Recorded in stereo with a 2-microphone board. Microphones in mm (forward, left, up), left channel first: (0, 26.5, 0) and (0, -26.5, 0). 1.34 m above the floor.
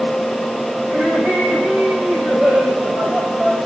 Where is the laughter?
45° right (ahead or behind), 6.5 m; by 3.6 s 30° right (ahead or behind), 7 m.